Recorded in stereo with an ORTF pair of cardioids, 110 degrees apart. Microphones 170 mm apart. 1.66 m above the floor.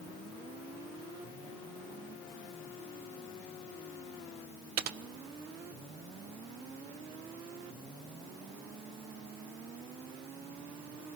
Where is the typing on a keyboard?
65° right, 0.9 m.